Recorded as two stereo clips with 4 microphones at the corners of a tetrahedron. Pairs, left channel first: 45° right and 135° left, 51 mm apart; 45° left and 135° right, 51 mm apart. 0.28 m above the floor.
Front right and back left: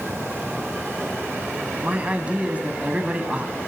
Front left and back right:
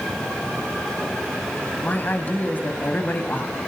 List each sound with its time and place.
1.8 s a man speaking: 85° left, 2 m